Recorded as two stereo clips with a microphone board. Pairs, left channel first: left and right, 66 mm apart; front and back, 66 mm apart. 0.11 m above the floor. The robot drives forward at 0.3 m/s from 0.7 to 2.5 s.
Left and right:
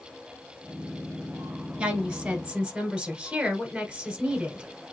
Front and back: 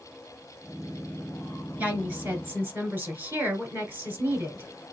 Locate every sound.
1.8 s a woman speaking: 150° right, 1.6 m; by 4.7 s 155° right, 1.7 m